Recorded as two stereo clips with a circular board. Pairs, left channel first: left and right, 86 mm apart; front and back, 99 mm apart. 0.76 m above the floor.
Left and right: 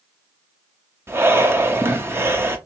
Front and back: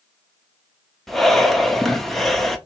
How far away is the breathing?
About 0.7 m.